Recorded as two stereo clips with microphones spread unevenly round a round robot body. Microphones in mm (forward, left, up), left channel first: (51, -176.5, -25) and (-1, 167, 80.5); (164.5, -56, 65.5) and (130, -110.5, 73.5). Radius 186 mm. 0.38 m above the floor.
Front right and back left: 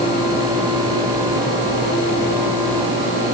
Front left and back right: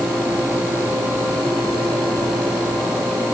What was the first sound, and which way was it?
Only background noise.